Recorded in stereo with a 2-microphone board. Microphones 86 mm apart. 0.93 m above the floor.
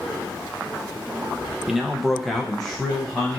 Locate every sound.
1.7 s a man speaking: 5° right (ahead or behind), 0.6 m; by 3.4 s 10° left (ahead or behind), 0.9 m